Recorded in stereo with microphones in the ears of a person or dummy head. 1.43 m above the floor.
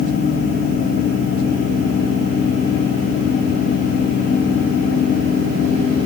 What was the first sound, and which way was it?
Only background noise.